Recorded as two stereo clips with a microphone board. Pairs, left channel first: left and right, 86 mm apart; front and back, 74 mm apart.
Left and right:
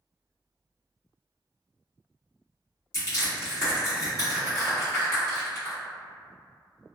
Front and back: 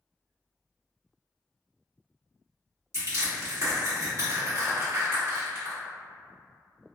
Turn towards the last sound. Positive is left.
turn(degrees=140)